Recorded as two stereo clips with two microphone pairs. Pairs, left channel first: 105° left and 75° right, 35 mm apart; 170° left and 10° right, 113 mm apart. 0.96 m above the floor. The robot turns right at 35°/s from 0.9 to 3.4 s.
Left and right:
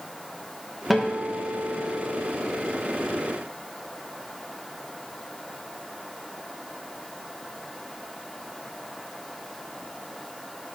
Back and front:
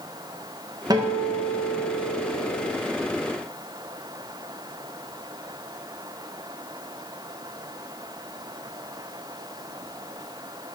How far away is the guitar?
About 0.7 m.